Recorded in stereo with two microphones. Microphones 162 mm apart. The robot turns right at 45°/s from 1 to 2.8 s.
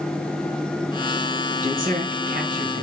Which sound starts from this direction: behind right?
A man speaking, at 1.6 s.